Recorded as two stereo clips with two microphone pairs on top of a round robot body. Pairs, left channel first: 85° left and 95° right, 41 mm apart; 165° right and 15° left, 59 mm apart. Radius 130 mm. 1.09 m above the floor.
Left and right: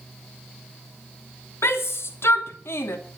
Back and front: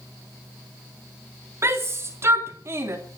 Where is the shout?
60° left, 3 m.